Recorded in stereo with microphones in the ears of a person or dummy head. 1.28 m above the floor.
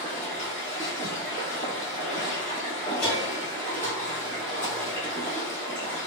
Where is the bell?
10° left (ahead or behind), 1.1 m.